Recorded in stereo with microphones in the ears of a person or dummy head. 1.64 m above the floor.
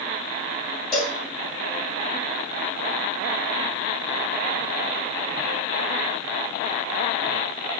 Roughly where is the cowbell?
Centre.